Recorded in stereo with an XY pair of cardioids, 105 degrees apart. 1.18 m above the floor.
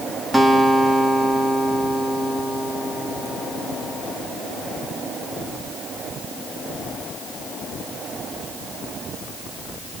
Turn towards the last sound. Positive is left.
turn(degrees=-10)